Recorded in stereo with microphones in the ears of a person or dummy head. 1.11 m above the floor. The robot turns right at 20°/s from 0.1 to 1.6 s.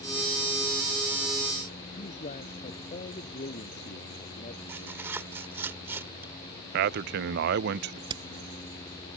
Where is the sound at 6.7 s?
50° right (ahead or behind).